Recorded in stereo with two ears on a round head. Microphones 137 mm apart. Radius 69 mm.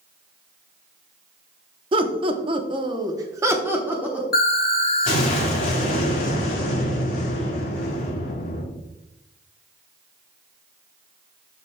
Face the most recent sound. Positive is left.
turn(degrees=60)  # may be behind; listen again after turning